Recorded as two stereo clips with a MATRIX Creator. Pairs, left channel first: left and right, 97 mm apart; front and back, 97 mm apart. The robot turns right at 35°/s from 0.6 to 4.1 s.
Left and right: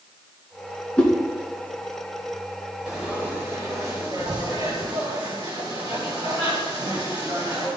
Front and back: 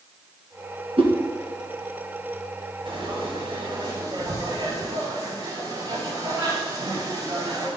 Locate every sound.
1.0 s a whoosh: 165° left, 1.9 m; by 1.1 s 170° left, 1.9 m
2.9 s frying: 175° right, 3.5 m; by 7.7 s 130° right, 3.5 m